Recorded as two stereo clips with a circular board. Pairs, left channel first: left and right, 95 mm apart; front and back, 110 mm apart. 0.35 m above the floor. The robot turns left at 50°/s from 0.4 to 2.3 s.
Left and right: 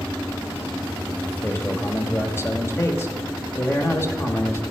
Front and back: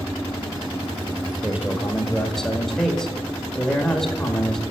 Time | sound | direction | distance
1.4 | a man speaking | 120° left | 1.1 m